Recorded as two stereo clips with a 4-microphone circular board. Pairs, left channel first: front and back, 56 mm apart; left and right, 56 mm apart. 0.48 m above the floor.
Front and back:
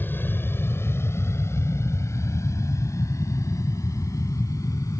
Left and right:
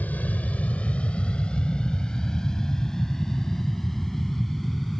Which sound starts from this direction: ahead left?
An aircraft, at 0.0 s.